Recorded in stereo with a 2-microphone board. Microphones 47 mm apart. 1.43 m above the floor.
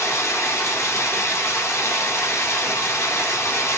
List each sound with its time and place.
0.0 s running water: 75° left (ahead or behind), 3.5 m